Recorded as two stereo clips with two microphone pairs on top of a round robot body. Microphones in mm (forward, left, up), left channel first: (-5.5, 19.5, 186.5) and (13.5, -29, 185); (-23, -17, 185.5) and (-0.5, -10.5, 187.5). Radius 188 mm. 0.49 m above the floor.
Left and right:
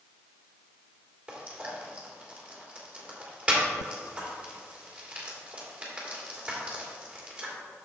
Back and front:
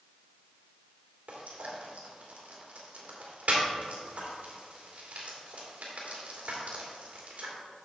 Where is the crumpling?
No crumpling in this recording.